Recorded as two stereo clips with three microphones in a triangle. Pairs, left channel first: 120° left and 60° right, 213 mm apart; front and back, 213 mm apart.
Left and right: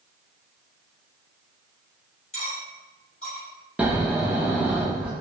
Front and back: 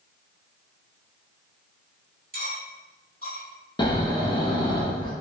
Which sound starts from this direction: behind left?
Cutlery clinking, at 2.3 s.